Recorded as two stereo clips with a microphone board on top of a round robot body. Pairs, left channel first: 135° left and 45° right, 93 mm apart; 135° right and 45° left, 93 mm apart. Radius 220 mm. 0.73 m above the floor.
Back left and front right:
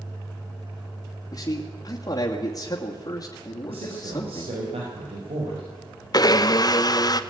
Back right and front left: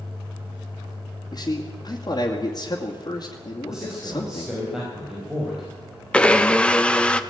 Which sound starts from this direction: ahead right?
A man speaking, at 3.7 s.